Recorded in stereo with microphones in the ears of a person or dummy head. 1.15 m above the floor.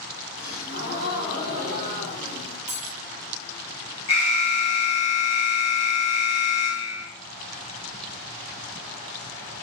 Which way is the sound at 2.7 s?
10° right (ahead or behind).